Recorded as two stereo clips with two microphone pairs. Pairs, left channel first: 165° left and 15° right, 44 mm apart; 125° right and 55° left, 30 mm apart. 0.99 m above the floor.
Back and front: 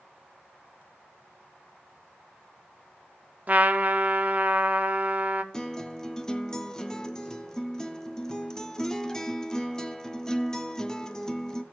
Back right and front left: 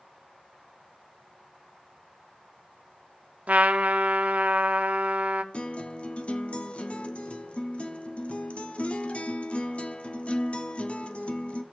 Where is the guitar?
125° right, 0.6 m.